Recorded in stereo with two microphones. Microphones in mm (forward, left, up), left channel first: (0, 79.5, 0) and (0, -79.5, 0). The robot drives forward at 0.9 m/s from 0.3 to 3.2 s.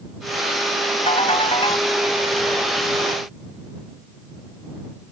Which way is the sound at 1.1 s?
40° left (ahead or behind).